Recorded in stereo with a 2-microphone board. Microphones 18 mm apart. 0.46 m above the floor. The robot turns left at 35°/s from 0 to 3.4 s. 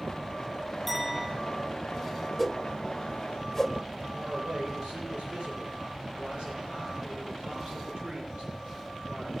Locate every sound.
0.9 s a clink: 10° left (ahead or behind), 8.5 m; by 1.3 s 5° right (ahead or behind), 8.5 m
2.4 s a whoosh: 15° right (ahead or behind), 1.5 m; by 3.7 s 10° left (ahead or behind), 1.5 m
4.1 s a man speaking: 80° right, 9.5 m